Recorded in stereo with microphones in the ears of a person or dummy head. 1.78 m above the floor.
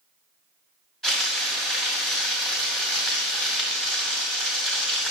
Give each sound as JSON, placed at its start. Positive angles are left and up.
{"t": 1.0, "sound": "frying", "side_deg": 0, "distance_m": 2.0}